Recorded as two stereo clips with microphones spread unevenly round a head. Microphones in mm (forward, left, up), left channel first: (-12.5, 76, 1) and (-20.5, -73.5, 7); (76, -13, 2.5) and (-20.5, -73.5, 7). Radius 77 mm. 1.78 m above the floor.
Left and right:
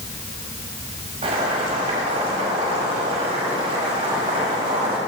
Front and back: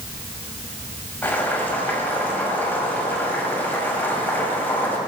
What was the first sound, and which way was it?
Boiling, 40° right.